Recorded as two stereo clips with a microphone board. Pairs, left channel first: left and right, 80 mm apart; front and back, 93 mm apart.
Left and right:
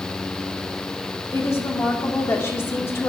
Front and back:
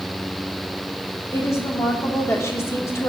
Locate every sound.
1.3 s a woman speaking: 45° left, 0.9 m